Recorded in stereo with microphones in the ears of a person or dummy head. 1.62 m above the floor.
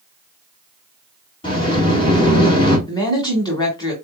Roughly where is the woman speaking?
Left.